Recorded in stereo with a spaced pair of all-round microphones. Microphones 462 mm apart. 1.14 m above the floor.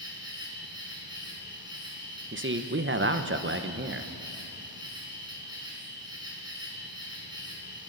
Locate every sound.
0.0 s an insect: 10° right (ahead or behind), 4 m
2.3 s a man speaking: 25° right (ahead or behind), 0.8 m